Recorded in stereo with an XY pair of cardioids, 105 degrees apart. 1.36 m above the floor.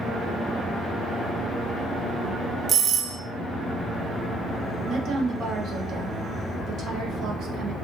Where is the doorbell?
55° right, 0.8 m.